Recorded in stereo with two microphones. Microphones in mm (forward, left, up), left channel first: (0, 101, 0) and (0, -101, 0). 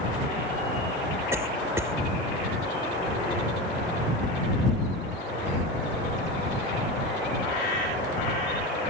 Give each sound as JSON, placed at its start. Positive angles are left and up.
{"t": 1.3, "sound": "a cough", "side_deg": -15}